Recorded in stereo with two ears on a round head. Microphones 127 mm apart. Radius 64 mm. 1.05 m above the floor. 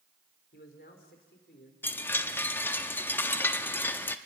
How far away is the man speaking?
About 3.5 m.